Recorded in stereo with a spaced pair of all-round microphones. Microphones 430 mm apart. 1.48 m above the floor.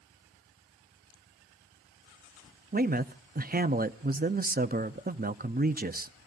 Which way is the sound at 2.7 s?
20° right (ahead or behind).